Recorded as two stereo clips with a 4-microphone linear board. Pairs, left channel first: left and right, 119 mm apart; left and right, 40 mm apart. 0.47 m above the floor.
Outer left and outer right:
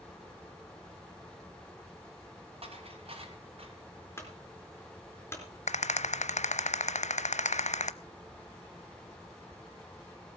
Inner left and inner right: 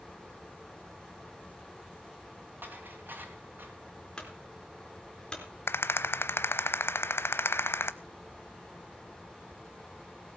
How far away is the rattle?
About 0.7 m.